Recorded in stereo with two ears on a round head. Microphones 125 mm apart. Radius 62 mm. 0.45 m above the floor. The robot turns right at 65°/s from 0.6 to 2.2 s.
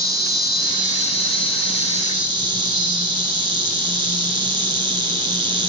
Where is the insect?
145° right, 0.7 m; by 5.7 s 45° right, 0.7 m.